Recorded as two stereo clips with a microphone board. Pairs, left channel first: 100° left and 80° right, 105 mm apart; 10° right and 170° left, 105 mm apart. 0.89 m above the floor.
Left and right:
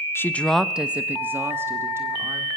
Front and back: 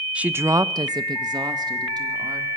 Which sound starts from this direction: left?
A woman speaking, at 0.1 s.